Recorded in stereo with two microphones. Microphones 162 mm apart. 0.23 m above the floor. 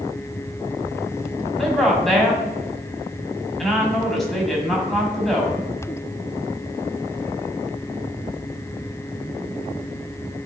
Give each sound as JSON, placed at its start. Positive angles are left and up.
{"t": 1.6, "sound": "a woman speaking", "side_deg": 0, "distance_m": 1.7}